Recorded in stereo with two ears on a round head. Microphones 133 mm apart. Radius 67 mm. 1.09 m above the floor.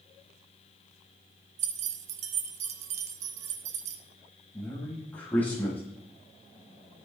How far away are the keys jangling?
About 0.8 m.